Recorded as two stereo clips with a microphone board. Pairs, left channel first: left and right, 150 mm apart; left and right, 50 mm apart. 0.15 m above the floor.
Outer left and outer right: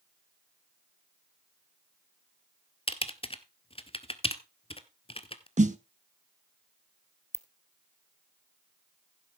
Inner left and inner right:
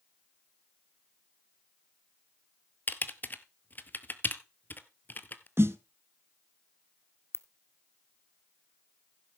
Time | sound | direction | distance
2.9 | typing on a keyboard | 40° left (ahead or behind) | 0.7 m
5.6 | a snare drum | 55° right (ahead or behind) | 0.6 m
7.3 | a ringtone | 50° left (ahead or behind) | 0.6 m